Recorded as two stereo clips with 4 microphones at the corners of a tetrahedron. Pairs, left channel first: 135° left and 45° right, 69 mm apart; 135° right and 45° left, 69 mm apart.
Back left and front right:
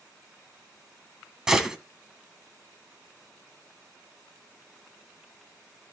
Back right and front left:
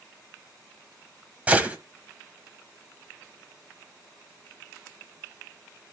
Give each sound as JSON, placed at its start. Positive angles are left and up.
{"t": 1.5, "sound": "a gunshot", "azimuth_deg": 25, "distance_m": 1.5}